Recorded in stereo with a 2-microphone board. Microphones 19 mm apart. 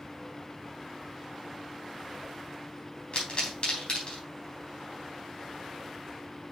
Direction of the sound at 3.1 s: 55° left (ahead or behind).